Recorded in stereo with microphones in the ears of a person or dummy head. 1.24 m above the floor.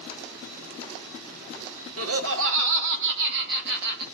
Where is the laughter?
75° right (ahead or behind), 1.1 m; by 4.0 s 60° right (ahead or behind), 2.5 m.